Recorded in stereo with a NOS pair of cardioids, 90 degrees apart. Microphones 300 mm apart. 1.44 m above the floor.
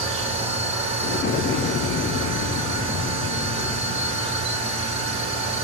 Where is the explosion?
40° left, 0.6 m.